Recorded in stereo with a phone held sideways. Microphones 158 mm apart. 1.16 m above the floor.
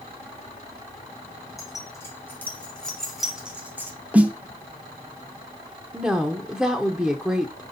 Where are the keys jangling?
20° left (ahead or behind), 2 m; by 3.9 s 15° right (ahead or behind), 1.7 m.